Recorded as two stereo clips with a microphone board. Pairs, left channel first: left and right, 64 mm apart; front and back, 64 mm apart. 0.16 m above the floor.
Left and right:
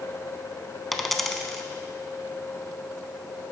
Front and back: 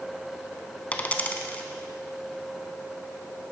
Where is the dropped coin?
5° left, 0.7 m.